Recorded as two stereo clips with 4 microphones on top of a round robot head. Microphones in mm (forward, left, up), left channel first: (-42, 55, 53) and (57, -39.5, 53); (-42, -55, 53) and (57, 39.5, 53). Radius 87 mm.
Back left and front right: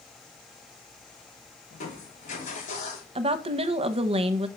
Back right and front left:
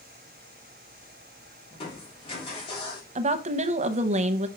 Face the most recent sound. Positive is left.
turn(degrees=5)